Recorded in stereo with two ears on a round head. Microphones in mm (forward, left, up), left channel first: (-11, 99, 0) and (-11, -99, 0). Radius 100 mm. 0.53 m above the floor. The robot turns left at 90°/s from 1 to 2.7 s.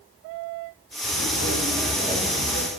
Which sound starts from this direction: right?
Footsteps, at 1.0 s.